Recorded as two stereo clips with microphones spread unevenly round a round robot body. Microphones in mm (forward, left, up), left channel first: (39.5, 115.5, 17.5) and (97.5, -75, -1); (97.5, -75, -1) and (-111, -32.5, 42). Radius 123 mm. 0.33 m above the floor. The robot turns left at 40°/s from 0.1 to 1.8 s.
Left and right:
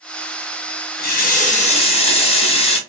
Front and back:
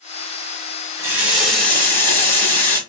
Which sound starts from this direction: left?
A running tap, at 1.0 s.